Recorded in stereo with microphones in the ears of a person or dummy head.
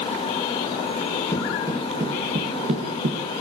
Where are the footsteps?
5° left (ahead or behind), 2 m; by 3.2 s 40° right (ahead or behind), 4 m.